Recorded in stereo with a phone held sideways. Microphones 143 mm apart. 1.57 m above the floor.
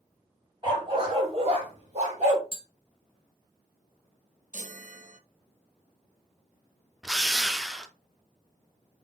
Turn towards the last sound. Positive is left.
turn(degrees=0)  # may be behind; listen again after turning